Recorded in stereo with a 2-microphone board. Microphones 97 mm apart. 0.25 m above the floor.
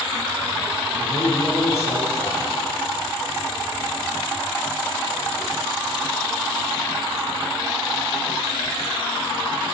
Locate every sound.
1.0 s a man speaking: 30° left (ahead or behind), 5.5 m